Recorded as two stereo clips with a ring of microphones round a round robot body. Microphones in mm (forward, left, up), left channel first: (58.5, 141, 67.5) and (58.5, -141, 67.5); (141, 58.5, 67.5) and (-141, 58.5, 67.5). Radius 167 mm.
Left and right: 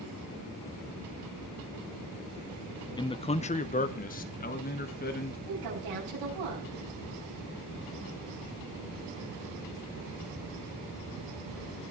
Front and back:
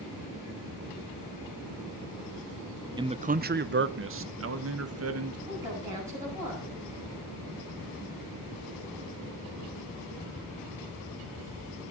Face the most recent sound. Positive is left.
turn(degrees=-100)